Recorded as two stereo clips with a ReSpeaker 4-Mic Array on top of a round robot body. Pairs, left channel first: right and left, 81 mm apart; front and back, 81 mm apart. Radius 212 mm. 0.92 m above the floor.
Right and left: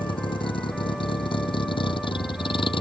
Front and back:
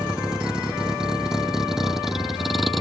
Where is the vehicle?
100° right; by 2.8 s 90° right.